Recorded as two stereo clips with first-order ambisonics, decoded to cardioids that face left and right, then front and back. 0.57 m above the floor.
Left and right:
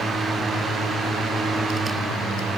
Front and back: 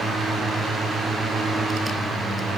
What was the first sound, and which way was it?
Only background noise.